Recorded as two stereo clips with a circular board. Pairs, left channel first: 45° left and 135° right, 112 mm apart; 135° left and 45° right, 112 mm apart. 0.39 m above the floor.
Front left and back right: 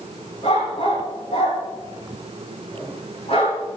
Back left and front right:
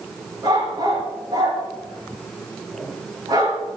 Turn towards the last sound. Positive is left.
turn(degrees=10)